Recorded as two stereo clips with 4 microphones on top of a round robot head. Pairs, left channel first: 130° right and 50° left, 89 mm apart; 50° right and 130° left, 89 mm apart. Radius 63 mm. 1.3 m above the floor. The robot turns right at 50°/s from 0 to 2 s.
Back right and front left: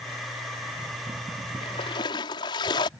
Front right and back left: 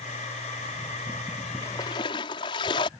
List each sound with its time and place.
1.6 s a splash: 110° right; by 2.9 s 90° right